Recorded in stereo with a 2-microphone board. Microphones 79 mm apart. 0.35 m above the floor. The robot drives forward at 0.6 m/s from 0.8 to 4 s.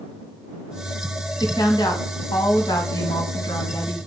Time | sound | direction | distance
1.4 | a woman speaking | 70° left (ahead or behind) | 2.5 m